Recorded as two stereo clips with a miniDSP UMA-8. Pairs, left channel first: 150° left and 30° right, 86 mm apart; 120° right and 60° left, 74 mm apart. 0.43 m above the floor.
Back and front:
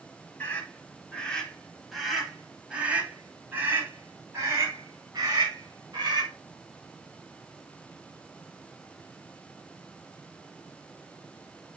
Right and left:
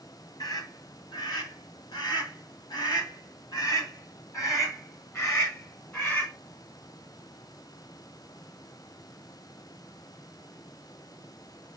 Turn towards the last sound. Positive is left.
turn(degrees=-65)